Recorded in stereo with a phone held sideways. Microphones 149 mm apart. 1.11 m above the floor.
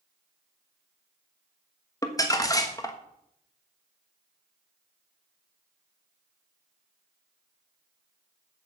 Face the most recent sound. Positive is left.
turn(degrees=25)  # may be behind; listen again after turning